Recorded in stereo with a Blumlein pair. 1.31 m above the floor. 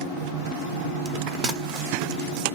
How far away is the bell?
About 0.7 m.